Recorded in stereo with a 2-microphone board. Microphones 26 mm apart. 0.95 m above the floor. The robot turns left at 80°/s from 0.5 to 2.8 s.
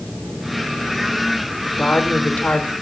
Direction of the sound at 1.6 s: 135° left.